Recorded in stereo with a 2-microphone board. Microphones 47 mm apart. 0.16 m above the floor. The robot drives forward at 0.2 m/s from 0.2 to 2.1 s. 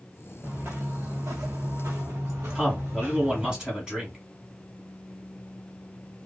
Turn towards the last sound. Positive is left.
turn(degrees=-15)  # may be behind; listen again after turning